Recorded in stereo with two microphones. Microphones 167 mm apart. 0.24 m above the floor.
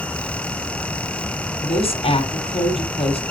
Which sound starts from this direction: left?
A woman speaking, at 1.6 s.